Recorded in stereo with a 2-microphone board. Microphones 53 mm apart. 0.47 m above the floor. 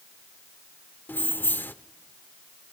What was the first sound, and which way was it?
Keys jangling, 40° left (ahead or behind).